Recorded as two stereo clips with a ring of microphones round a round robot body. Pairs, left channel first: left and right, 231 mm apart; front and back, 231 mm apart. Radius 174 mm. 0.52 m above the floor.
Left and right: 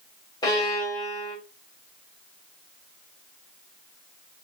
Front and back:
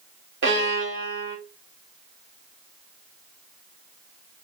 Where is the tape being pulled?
I don't hear tape being pulled.